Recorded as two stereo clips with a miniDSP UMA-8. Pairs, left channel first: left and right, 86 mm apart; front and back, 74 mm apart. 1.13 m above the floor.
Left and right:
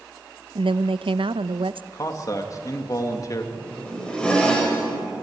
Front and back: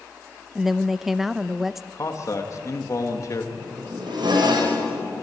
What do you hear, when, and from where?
0.6 s a woman speaking: 95° right, 0.6 m
1.9 s a man speaking: 45° left, 2 m
3.5 s a zipper: 170° left, 4.5 m